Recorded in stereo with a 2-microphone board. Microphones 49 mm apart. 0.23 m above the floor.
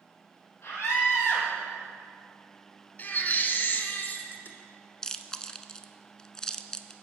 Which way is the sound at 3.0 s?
40° left (ahead or behind).